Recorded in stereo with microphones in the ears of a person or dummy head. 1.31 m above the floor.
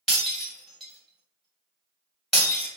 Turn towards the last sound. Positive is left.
turn(degrees=-5)  # may be behind; listen again after turning